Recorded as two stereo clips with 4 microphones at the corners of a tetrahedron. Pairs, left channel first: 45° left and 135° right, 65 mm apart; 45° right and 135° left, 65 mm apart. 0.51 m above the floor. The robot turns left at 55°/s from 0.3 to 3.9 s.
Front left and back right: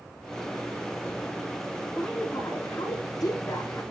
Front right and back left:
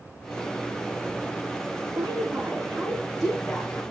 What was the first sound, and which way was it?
A woman speaking, 115° left.